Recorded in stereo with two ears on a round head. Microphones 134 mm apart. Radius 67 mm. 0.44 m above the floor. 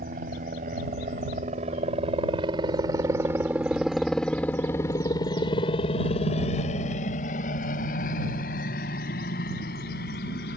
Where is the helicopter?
60° right (ahead or behind); by 10.6 s 70° left (ahead or behind).